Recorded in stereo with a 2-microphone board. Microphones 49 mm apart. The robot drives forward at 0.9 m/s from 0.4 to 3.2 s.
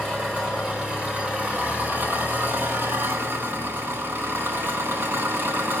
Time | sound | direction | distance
0.0 | an engine running | 20° right (ahead or behind) | 3 m